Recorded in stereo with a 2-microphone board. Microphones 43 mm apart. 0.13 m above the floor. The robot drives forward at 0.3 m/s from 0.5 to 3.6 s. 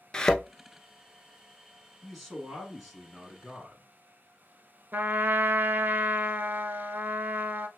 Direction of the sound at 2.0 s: Centre (ahead or behind).